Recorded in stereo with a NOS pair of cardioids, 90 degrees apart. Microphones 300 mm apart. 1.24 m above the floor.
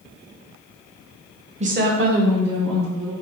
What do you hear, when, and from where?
1.6 s a woman speaking: 20° right, 0.8 m; by 3.1 s 70° right, 2 m